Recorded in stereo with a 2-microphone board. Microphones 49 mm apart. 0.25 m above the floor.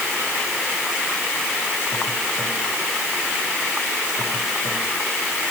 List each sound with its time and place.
Only background noise.